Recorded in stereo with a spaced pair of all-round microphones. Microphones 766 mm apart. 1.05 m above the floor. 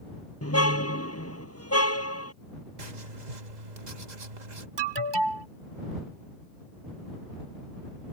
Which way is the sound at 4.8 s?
35° right (ahead or behind).